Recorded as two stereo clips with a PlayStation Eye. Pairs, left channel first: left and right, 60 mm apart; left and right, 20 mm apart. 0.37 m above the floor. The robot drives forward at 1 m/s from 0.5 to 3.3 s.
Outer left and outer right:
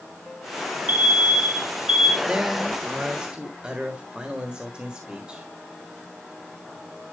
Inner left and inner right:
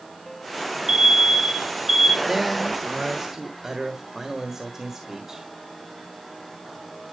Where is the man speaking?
20° right (ahead or behind), 1.3 m; by 5.5 s 15° right (ahead or behind), 1.5 m.